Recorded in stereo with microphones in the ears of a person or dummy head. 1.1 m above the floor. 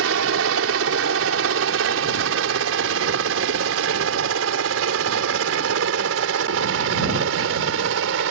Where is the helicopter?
65° right (ahead or behind).